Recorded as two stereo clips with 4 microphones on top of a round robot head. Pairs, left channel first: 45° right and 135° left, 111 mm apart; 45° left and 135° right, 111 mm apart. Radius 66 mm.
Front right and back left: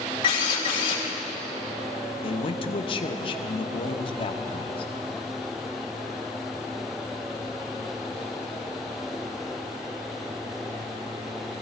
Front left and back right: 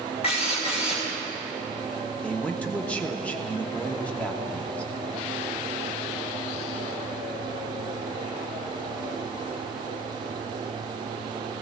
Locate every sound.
0.2 s a drill: 5° left, 4.5 m
2.2 s a man speaking: 30° right, 1.2 m